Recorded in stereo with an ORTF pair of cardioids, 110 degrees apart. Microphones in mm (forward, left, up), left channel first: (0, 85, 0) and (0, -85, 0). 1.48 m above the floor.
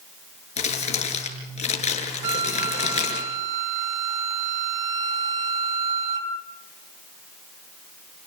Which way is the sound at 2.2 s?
50° right.